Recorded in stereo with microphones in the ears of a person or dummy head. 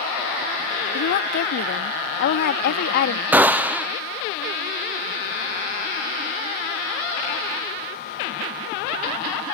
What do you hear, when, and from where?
0.9 s a woman speaking: 50° left (ahead or behind)
3.3 s a gunshot: 20° right (ahead or behind)